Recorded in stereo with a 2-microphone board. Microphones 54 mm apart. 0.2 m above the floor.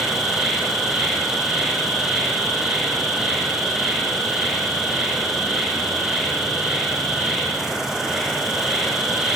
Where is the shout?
No shout in this recording.